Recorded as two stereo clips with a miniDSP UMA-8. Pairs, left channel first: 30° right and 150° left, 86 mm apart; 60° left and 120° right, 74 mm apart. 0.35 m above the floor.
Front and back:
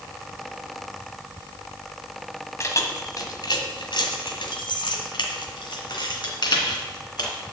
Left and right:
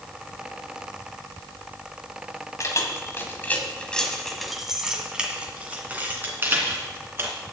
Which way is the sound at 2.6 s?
20° left.